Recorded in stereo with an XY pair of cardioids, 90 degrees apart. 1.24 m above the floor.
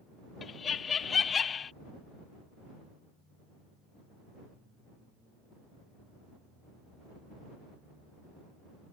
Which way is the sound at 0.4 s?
50° left.